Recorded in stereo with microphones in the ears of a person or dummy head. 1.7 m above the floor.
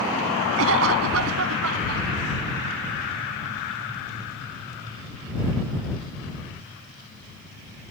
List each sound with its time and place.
0.6 s a cough: 75° right (ahead or behind)